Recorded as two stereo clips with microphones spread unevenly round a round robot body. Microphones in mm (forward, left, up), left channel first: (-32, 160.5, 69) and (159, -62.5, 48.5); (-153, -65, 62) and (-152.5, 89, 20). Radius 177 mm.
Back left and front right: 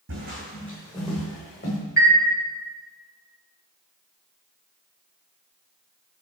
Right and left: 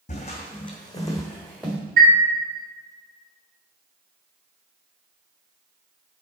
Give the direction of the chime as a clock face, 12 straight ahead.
10 o'clock.